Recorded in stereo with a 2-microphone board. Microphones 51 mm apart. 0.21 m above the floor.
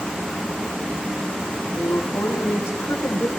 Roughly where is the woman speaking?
Left.